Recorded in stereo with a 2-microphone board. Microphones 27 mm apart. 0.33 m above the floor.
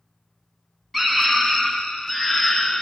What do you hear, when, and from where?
0.9 s a scream: centre (ahead or behind), 3 m; by 2.8 s 15° left (ahead or behind), 4.5 m